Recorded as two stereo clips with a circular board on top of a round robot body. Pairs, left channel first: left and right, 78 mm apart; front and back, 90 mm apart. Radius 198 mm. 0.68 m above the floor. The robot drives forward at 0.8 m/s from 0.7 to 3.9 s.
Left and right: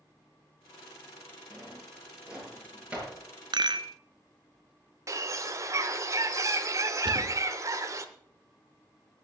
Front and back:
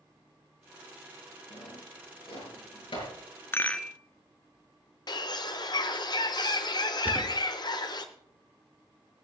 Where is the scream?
No scream in this recording.